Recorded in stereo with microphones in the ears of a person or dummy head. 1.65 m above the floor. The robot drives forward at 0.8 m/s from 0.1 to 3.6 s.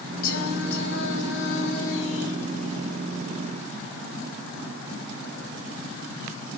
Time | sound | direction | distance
0.2 | singing | 50° left (ahead or behind) | 3 m